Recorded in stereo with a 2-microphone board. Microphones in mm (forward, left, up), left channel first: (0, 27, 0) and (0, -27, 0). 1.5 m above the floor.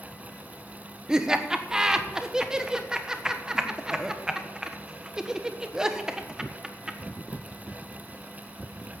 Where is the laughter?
15° right (ahead or behind), 1.2 m.